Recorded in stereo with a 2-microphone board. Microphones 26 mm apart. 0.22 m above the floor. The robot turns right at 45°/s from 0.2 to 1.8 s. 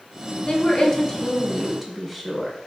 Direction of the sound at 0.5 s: 120° left.